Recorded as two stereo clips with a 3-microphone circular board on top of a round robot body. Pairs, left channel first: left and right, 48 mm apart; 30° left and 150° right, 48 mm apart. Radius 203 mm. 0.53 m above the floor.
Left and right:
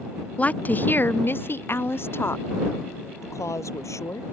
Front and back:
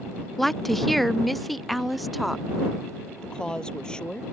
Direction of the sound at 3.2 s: 105° left.